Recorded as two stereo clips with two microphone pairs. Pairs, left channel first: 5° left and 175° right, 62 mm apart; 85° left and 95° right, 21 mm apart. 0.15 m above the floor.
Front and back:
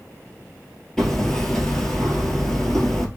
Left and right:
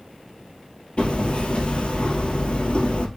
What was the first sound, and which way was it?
Hammering, 90° left.